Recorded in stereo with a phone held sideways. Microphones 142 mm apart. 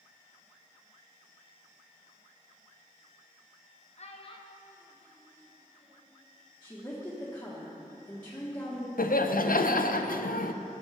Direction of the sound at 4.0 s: 50° left (ahead or behind).